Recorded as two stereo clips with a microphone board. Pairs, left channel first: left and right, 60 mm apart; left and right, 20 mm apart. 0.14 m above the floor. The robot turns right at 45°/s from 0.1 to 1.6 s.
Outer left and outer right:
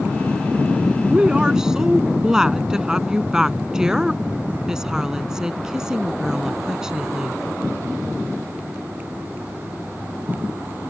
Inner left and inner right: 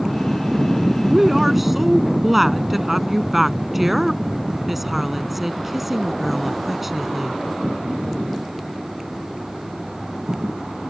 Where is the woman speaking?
20° right (ahead or behind); by 7.4 s 10° right (ahead or behind).